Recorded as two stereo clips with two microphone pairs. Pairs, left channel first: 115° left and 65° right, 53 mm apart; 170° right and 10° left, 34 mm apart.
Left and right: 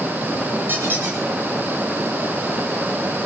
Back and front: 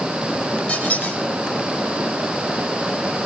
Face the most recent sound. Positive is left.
turn(degrees=-115)